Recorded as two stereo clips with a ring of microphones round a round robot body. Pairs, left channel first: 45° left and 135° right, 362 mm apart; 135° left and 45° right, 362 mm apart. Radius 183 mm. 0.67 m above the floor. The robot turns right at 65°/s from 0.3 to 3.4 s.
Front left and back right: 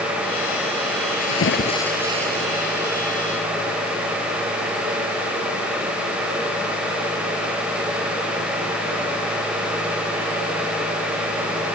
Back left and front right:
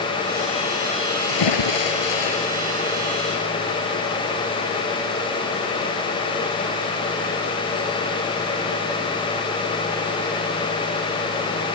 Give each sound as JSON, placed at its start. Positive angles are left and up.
{"t": 1.2, "sound": "a splash", "azimuth_deg": 90}